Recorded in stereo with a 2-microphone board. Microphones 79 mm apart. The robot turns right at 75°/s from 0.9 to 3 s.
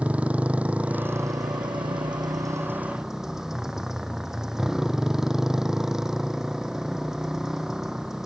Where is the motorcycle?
165° right; by 8.3 s 5° right.